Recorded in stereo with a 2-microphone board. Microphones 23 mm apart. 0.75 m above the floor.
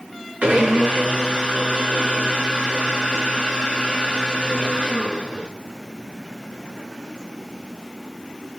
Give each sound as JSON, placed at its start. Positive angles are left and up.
{"t": 0.4, "sound": "a blender", "side_deg": -80, "distance_m": 6.0}